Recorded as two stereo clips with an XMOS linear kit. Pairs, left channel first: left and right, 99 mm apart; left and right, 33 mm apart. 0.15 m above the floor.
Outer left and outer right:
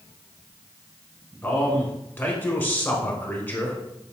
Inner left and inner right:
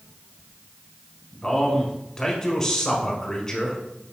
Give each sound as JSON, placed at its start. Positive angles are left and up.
{"t": 1.4, "sound": "a man speaking", "side_deg": 20, "distance_m": 1.1}